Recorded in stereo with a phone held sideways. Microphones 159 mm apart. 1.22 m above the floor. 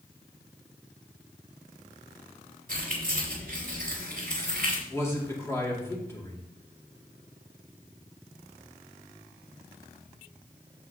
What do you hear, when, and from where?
2.7 s keys jangling: 60° right (ahead or behind), 3 m
4.9 s a man speaking: 15° left (ahead or behind), 2.5 m